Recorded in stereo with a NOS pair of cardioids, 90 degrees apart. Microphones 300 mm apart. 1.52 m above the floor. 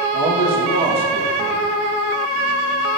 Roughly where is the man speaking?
Ahead right.